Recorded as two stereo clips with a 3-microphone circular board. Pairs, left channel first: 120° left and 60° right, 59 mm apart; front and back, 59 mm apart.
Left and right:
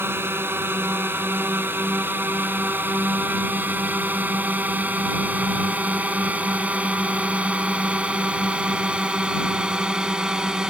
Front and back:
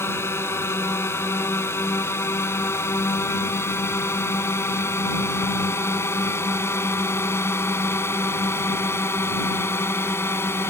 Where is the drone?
25° right; by 10.7 s 15° left.